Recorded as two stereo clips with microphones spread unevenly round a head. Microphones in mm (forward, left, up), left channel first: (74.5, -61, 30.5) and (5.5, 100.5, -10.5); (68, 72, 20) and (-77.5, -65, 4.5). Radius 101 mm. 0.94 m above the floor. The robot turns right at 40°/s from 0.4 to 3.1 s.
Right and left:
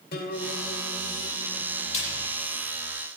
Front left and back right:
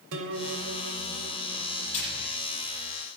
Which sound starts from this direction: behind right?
A guitar, at 0.1 s.